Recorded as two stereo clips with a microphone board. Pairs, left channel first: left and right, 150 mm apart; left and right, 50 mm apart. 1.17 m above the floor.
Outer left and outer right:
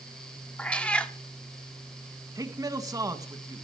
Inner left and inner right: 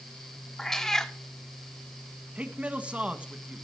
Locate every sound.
0.6 s a cat meowing: 10° left (ahead or behind), 1.0 m
2.4 s a man speaking: 25° right (ahead or behind), 1.6 m